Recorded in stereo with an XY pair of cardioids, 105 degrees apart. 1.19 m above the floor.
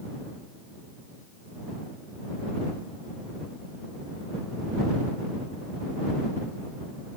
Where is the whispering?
I don't hear whispering.